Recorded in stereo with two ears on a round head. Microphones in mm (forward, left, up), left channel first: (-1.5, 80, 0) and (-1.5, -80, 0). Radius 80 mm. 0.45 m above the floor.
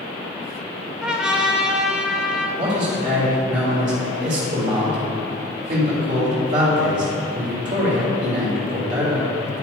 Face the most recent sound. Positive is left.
turn(degrees=-40)  # may be behind; listen again after turning